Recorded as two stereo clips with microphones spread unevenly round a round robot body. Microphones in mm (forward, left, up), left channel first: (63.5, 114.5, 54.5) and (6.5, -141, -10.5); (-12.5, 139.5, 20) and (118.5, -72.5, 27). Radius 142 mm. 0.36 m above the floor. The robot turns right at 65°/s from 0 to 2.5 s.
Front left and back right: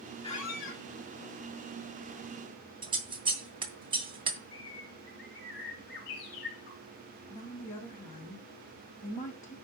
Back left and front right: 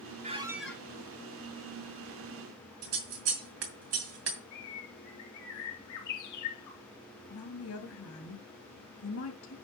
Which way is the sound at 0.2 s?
5° left.